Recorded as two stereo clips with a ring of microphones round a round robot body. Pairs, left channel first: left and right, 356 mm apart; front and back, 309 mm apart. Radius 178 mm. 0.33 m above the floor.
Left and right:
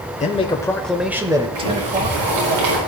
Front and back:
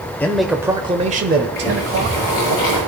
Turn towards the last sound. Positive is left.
turn(degrees=-80)